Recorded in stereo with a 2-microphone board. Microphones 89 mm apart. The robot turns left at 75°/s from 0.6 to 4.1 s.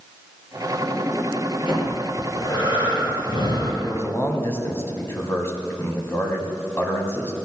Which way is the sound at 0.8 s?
5° left (ahead or behind).